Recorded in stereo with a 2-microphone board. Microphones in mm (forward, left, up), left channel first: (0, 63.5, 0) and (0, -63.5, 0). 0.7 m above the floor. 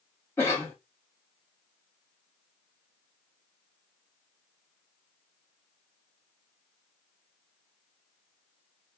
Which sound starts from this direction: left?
A cough, at 0.4 s.